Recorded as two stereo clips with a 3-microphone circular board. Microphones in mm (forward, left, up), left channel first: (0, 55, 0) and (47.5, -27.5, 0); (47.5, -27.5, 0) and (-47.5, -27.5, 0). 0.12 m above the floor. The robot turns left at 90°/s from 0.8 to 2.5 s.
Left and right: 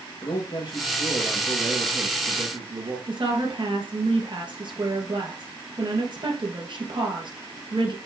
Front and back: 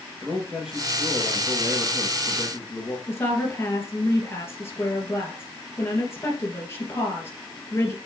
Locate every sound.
0.2 s a man speaking: 100° left, 2.5 m; by 3.0 s 55° right, 2.5 m
3.1 s a woman speaking: 60° right, 2.0 m